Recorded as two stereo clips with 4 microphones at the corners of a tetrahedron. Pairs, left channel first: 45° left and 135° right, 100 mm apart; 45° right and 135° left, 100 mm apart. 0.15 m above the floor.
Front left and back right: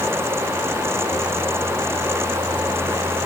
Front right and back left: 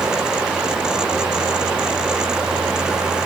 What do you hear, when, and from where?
Only background noise.